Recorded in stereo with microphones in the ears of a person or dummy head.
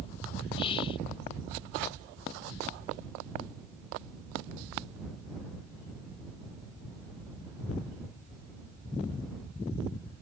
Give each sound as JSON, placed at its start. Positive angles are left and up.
{"t": 0.6, "sound": "whispering", "side_deg": 30}